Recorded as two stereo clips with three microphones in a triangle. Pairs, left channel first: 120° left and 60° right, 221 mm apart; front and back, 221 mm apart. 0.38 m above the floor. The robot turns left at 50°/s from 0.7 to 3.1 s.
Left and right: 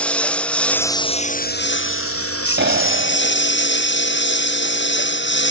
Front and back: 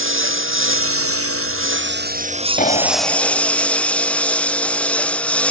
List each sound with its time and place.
0.0 s a lawn mower: 155° right; by 5.5 s 85° left
2.6 s a clap: 45° right; by 3.5 s 70° right